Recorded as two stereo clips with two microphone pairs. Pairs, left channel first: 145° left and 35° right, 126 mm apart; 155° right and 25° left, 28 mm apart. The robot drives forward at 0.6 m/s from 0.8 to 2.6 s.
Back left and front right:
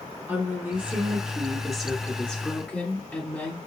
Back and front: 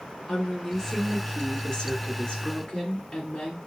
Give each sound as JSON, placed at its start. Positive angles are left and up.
{"t": 0.3, "sound": "a woman speaking", "azimuth_deg": -85, "distance_m": 1.6}